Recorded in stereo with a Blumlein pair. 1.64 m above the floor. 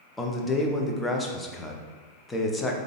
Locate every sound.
0.2 s a man speaking: 10° left, 0.6 m